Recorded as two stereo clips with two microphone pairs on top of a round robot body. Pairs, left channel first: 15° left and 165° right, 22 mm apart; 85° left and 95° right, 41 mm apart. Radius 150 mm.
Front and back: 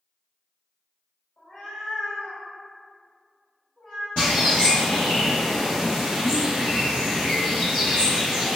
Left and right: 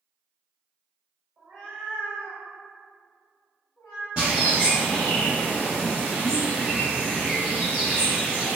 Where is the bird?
40° right, 0.5 m.